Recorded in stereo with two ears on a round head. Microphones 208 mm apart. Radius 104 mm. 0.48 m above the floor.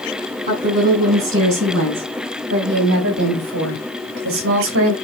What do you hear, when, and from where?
0.5 s a woman speaking: 35° right (ahead or behind), 5.5 m; by 4.9 s 60° right (ahead or behind), 2.5 m